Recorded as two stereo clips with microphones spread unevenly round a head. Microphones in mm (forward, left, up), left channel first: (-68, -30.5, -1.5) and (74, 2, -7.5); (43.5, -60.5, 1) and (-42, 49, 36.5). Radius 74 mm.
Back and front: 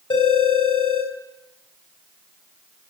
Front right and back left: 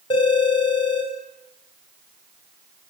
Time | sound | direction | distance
0.1 | a phone ringing | 110° right | 4 m